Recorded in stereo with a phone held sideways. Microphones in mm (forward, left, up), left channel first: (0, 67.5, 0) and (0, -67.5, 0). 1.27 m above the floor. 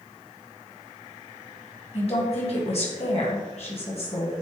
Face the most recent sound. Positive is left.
turn(degrees=50)  # may be behind; listen again after turning